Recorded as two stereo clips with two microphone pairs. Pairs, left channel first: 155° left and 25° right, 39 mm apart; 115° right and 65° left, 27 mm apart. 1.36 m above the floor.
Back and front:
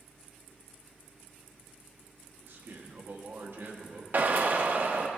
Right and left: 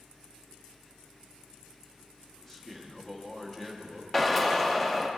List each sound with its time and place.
2.4 s a man speaking: 45° right, 1.0 m
4.1 s a drill: 35° right, 0.5 m